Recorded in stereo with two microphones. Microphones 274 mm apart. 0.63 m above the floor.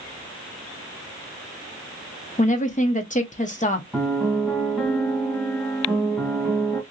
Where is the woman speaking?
30° left (ahead or behind), 0.6 m.